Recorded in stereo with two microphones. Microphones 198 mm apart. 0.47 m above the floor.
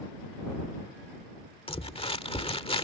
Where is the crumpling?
30° left (ahead or behind).